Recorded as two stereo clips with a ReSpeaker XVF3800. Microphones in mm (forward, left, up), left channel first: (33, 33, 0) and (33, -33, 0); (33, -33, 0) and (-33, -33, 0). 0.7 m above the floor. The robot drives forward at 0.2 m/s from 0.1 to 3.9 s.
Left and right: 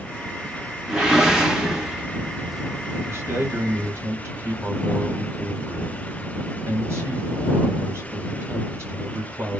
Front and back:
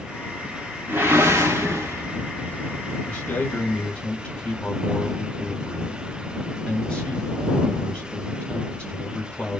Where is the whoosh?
165° right, 0.8 m; by 2.5 s 175° right, 1.0 m.